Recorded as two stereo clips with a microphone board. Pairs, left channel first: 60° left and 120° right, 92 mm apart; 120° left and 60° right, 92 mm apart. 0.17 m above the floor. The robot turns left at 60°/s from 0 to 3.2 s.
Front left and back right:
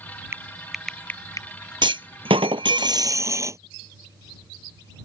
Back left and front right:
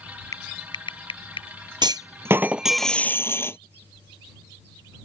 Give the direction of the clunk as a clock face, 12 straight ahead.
3 o'clock.